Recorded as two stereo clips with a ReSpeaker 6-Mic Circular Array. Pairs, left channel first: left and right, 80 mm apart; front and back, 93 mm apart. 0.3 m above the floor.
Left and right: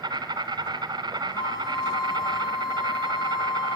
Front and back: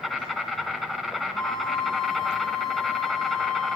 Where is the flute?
85° left, 3.5 m.